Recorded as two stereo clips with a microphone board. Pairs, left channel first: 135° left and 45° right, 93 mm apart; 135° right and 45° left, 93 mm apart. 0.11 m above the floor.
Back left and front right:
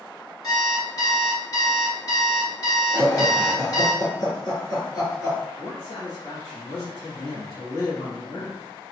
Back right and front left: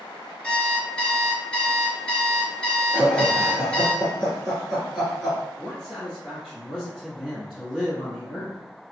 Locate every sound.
0.4 s an alarm clock: 150° left, 1.2 m
2.9 s laughter: 130° left, 2.0 m
5.6 s a man speaking: 125° left, 1.8 m